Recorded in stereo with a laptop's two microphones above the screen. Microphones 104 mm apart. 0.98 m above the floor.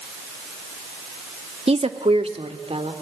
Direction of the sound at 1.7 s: 75° right (ahead or behind).